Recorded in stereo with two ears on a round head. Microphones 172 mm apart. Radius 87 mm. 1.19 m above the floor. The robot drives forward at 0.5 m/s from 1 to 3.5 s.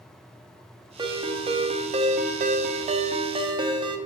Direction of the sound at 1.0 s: 25° right (ahead or behind).